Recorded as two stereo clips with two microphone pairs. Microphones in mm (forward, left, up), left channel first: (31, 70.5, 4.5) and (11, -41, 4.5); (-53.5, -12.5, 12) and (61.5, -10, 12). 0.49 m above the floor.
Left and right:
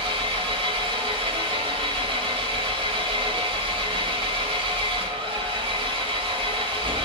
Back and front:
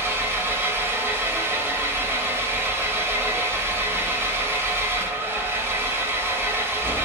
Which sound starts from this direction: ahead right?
An engine running, at 0.0 s.